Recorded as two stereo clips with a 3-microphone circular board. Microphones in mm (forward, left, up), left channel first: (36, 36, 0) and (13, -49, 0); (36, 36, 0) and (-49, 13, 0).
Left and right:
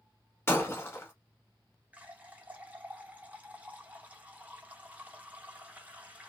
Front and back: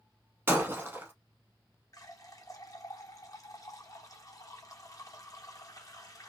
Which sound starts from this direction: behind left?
Breaking glass, at 0.5 s.